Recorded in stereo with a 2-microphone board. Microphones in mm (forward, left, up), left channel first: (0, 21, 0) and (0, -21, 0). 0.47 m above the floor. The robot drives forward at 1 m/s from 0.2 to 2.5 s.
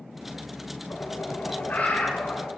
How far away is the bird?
About 1.8 m.